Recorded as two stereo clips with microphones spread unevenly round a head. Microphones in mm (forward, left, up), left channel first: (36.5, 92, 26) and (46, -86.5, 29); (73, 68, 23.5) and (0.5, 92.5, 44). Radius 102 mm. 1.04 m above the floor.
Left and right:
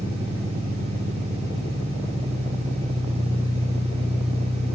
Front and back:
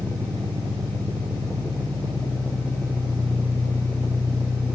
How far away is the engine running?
About 8 m.